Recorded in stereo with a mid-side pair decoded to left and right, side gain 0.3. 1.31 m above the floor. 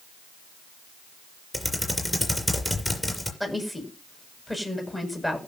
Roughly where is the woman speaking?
Ahead.